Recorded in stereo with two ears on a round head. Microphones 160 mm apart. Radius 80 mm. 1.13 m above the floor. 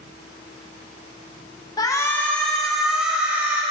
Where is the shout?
20° left (ahead or behind), 1.1 m; by 3.6 s 10° right (ahead or behind), 1.9 m.